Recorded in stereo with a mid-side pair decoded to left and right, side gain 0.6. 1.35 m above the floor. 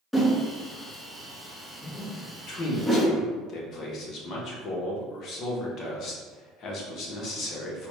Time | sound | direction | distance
0.1 | a whoosh | 10° left | 1.0 m
2.5 | a man speaking | 55° left | 1.3 m